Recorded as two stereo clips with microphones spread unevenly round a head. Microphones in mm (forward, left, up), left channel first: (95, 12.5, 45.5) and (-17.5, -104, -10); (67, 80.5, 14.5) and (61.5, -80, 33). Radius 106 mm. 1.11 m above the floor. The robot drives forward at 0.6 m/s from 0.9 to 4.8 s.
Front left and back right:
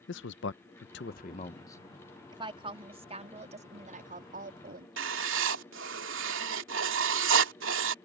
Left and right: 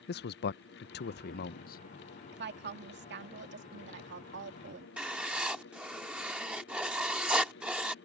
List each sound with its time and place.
0.1 s a man speaking: 85° left; by 1.8 s 130° left
2.3 s a woman speaking: 75° right; by 4.9 s 105° right
5.0 s writing: 175° right